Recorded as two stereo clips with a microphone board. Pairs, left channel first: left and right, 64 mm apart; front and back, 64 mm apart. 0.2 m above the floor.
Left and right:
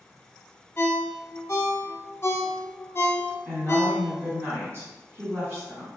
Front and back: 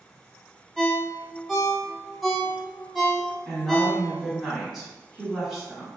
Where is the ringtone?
90° left, 0.6 m.